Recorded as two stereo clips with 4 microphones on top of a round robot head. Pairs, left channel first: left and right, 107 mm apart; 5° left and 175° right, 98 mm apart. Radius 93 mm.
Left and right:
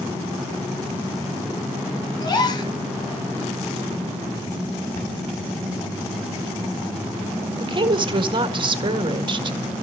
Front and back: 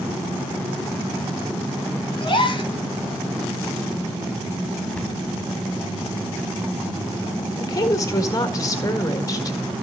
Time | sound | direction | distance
2.2 | a gasp | 45° left | 2.5 m
5.0 | a cupboard door | 80° left | 2 m
7.6 | a woman speaking | 50° right | 1.6 m